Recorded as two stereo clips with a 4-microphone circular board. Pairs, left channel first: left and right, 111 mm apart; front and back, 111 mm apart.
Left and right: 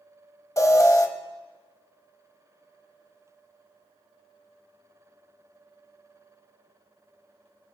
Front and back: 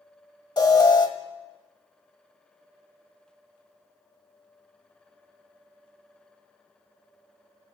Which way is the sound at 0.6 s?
40° left.